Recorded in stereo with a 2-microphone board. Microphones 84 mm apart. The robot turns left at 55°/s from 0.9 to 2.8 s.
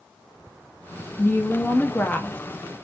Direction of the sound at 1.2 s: 25° left (ahead or behind).